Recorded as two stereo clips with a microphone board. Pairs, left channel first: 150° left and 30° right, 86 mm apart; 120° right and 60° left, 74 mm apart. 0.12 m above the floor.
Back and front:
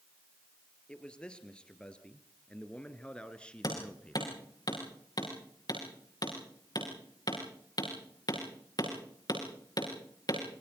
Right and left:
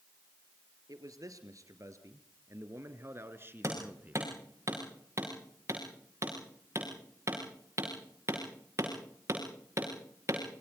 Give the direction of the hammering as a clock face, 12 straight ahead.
8 o'clock.